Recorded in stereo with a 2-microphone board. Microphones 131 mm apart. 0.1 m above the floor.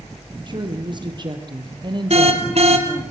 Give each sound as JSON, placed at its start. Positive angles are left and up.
{"t": 0.5, "sound": "a woman speaking", "side_deg": -40, "distance_m": 3.0}
{"t": 2.1, "sound": "an alarm", "side_deg": -55, "distance_m": 3.0}